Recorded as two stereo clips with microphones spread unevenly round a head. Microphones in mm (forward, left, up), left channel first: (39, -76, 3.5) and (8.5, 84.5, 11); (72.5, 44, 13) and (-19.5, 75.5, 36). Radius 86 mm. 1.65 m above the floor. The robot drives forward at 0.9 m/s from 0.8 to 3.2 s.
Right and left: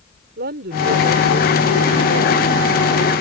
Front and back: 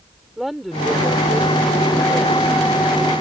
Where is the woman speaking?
75° left; by 2.6 s 90° left.